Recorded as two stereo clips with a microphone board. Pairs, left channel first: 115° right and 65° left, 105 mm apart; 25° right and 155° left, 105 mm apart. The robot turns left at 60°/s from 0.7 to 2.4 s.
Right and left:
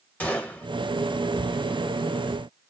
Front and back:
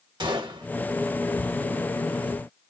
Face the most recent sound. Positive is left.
turn(degrees=75)